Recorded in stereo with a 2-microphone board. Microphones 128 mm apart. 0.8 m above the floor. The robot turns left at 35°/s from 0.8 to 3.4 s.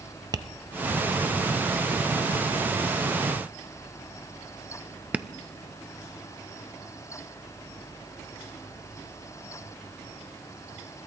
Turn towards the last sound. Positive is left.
turn(degrees=-10)  # may be behind; listen again after turning